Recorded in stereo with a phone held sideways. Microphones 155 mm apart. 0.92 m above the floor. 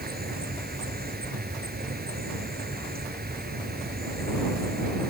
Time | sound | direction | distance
0.0 | an insect | 85° right | ?